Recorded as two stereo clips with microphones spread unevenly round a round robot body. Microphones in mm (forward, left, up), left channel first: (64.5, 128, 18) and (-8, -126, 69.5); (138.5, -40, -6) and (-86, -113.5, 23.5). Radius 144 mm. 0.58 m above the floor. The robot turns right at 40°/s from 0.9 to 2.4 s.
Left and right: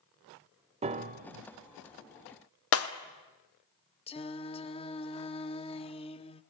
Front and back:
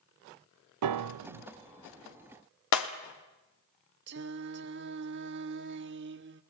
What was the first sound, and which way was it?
A piano, 175° right.